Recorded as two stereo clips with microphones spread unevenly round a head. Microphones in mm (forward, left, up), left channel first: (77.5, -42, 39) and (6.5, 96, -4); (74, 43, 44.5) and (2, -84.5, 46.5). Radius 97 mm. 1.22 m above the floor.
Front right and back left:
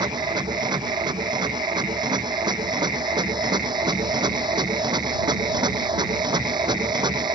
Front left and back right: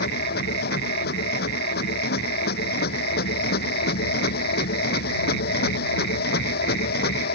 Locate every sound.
0.0 s a machine running: 55° left